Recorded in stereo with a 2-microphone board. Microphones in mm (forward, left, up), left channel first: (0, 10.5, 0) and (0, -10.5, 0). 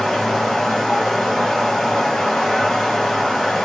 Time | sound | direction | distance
0.0 | running water | 40° left (ahead or behind) | 1.3 m